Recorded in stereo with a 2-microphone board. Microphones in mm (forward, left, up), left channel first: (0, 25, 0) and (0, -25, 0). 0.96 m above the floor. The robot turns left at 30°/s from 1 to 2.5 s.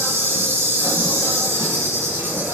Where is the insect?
75° right, 1.2 m; by 2.5 s 120° right, 1.2 m.